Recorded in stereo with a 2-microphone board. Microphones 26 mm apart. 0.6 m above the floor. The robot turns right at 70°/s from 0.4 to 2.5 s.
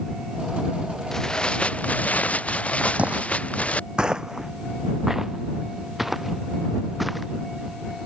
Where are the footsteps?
70° right (ahead or behind); by 7.2 s centre (ahead or behind).